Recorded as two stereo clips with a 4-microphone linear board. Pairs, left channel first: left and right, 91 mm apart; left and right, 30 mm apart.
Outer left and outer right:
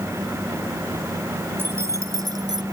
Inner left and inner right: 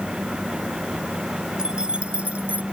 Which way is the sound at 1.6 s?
25° right (ahead or behind).